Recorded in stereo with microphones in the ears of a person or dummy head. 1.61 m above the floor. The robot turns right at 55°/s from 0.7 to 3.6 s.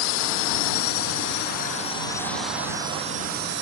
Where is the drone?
85° left; by 3.6 s 120° right.